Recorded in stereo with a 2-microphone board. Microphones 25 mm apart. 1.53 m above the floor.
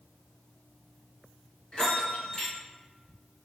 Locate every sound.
1.7 s a bell: 30° left (ahead or behind), 1.8 m